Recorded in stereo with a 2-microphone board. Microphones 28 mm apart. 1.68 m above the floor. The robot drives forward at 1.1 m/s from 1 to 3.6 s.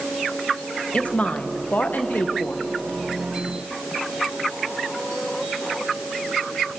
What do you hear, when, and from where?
0.9 s a woman speaking: 45° left (ahead or behind), 1.6 m; by 2.6 s 55° left (ahead or behind), 1.4 m